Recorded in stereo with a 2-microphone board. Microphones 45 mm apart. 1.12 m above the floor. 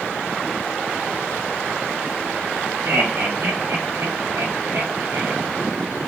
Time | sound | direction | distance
2.9 | laughter | 70° right (ahead or behind) | 5 m